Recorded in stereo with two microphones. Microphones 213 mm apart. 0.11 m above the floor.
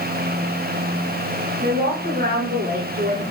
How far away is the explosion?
I don't hear an explosion.